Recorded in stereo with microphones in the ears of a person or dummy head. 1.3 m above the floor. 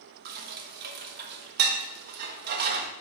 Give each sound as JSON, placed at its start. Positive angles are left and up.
{"t": 0.2, "sound": "dishes clattering", "side_deg": -55, "distance_m": 1.1}